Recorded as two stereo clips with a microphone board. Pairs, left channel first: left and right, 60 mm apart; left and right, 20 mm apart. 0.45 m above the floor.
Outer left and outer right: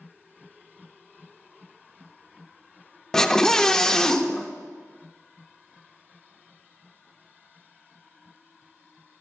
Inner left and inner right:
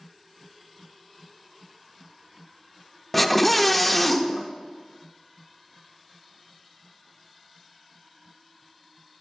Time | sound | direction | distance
3.1 | a scream | 10° left (ahead or behind) | 0.7 m